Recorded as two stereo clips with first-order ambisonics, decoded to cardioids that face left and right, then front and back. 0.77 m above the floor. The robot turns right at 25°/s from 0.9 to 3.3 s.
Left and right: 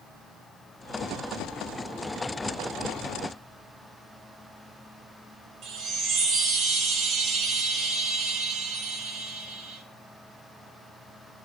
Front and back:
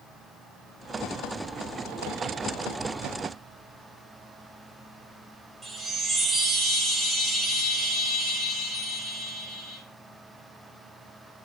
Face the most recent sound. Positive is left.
turn(degrees=-105)